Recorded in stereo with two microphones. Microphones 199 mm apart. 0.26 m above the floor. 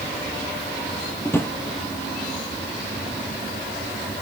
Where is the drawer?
10° left (ahead or behind), 2 m.